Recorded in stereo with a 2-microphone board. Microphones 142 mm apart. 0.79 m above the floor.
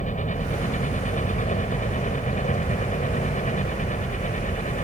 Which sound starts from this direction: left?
A helicopter, at 0.0 s.